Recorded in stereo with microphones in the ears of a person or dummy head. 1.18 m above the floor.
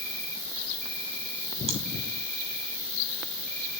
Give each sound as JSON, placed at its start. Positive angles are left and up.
{"t": 0.0, "sound": "an insect", "side_deg": -55, "distance_m": 6.0}
{"t": 1.7, "sound": "chewing", "side_deg": -35, "distance_m": 1.7}